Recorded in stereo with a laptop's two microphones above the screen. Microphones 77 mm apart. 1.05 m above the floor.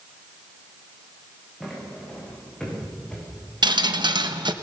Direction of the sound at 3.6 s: 65° right (ahead or behind).